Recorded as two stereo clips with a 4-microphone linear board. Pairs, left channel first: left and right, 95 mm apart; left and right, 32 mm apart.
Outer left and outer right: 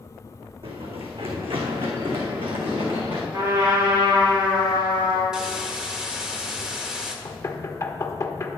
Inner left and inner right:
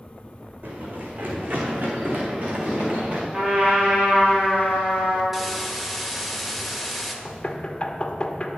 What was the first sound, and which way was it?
Running footsteps, 80° right.